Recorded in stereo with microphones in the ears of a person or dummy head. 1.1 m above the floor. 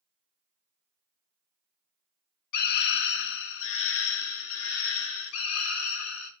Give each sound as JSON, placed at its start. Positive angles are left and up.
{"t": 2.5, "sound": "a scream", "side_deg": 45, "distance_m": 1.3}